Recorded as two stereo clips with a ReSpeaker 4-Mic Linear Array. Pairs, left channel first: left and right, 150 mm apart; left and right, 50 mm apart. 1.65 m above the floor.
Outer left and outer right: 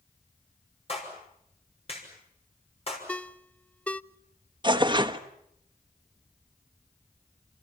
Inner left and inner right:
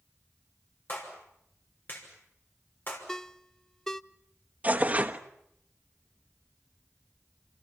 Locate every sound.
0.9 s a clap: 40° left (ahead or behind), 6 m
3.1 s a ringtone: 10° left (ahead or behind), 0.5 m
4.6 s tearing paper: 30° right (ahead or behind), 1.1 m